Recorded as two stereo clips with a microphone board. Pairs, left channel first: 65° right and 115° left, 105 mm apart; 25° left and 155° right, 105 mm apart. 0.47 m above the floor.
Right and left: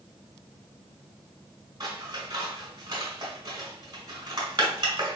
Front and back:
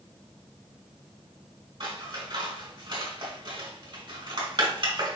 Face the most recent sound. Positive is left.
turn(degrees=160)